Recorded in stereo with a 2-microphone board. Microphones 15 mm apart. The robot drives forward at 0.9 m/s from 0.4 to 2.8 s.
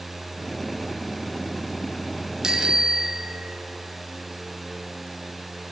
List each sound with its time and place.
2.4 s a bicycle bell: 45° right (ahead or behind), 2.5 m; by 3.6 s 50° right (ahead or behind), 2.5 m